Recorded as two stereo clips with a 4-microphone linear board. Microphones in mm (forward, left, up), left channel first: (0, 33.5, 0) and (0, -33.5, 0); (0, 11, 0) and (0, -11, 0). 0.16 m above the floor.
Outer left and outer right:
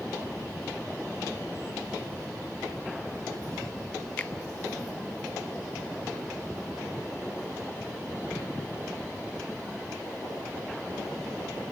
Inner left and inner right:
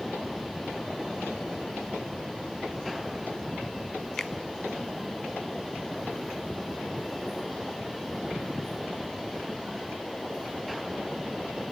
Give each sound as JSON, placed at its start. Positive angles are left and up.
{"t": 4.2, "sound": "a finger snap", "side_deg": 20, "distance_m": 0.8}